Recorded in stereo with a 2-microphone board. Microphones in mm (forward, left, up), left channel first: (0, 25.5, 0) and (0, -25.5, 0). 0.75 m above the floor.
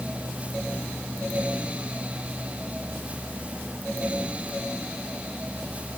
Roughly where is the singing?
No singing in this recording.